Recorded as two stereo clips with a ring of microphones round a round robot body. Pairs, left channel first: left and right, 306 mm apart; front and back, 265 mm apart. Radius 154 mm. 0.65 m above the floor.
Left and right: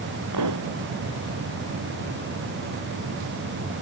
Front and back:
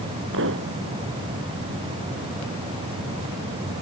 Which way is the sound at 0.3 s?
125° right.